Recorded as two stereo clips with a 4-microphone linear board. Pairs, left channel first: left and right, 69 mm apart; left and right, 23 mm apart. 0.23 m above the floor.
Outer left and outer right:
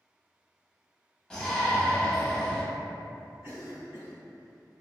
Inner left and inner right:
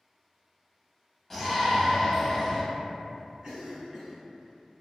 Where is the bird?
I don't hear a bird.